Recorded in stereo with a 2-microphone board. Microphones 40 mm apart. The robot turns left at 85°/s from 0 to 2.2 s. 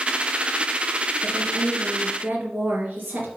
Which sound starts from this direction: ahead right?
A woman speaking, at 1.2 s.